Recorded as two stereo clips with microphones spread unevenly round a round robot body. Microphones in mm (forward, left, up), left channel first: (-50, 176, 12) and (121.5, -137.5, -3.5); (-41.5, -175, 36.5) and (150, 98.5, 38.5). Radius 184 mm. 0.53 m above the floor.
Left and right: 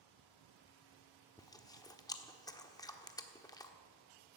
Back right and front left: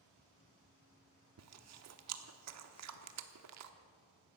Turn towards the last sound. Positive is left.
turn(degrees=40)